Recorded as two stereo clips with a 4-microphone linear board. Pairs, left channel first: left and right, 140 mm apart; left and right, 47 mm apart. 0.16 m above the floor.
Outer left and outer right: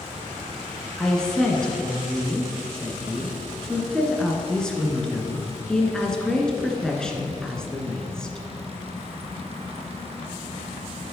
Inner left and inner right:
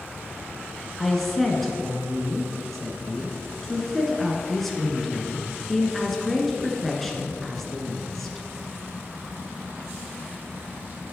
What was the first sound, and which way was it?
A woman speaking, 5° left (ahead or behind).